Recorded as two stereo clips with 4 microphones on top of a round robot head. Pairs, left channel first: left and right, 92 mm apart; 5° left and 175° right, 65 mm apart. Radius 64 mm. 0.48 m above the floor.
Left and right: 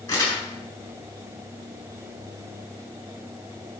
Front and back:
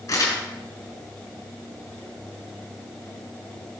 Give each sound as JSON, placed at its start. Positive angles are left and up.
{"t": 0.1, "sound": "crumpling", "azimuth_deg": 30, "distance_m": 6.5}